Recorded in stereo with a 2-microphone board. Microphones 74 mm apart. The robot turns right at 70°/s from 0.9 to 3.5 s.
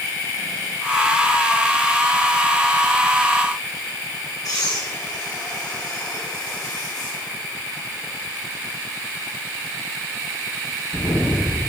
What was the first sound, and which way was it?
Breathing, 65° left (ahead or behind).